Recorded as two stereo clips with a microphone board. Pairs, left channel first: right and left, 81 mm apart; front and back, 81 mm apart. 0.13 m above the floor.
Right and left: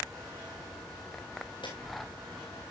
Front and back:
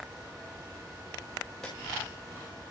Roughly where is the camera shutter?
Right.